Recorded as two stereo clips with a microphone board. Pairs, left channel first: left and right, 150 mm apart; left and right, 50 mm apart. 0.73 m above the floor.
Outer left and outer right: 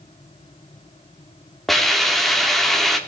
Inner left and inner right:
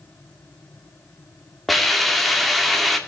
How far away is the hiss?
About 2.0 m.